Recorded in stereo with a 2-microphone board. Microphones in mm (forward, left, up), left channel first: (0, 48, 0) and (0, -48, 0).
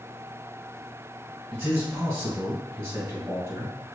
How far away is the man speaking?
About 1.3 m.